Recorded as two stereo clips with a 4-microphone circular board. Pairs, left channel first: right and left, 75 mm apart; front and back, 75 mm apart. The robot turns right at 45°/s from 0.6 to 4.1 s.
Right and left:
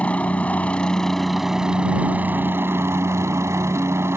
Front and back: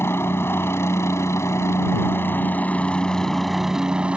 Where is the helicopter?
30° right; by 4.2 s 115° left.